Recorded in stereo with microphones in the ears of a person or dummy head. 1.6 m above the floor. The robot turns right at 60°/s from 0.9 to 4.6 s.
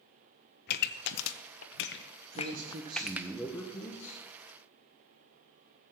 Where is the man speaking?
65° right, 1.8 m; by 4.2 s 50° left, 1.8 m.